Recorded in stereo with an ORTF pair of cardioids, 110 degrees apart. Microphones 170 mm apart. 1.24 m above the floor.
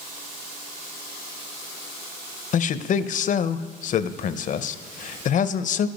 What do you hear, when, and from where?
2.5 s a man speaking: 50° left, 0.7 m